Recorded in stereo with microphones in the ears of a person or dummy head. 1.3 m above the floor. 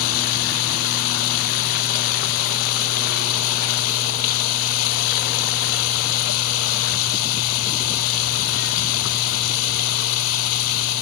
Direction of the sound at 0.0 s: 75° left (ahead or behind).